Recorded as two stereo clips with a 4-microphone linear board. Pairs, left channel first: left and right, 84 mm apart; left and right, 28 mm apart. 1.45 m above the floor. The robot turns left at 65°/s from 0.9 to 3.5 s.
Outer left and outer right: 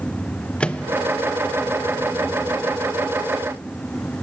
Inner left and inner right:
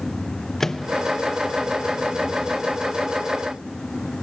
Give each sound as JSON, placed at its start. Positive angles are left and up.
{"t": 0.6, "sound": "a microwave", "side_deg": 15, "distance_m": 0.9}